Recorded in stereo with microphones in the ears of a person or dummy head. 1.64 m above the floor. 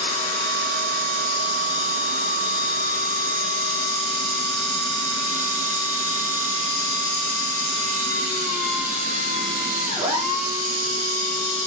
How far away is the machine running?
About 4 m.